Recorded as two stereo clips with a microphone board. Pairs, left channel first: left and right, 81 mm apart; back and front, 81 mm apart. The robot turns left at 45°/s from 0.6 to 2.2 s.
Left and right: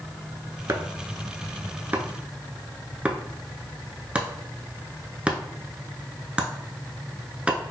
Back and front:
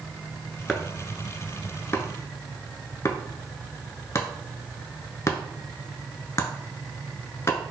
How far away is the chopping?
About 0.6 m.